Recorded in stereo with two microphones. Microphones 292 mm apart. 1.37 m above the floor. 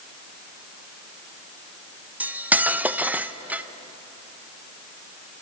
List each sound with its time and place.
2.2 s cutlery clinking: 5° right (ahead or behind), 0.5 m